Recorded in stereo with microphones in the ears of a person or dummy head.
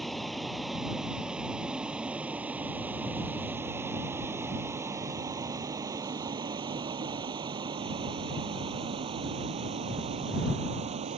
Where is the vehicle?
Centre (ahead or behind); by 11.2 s 40° right (ahead or behind).